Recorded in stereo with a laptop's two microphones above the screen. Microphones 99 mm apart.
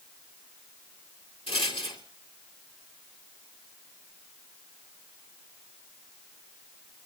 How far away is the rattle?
About 2.5 m.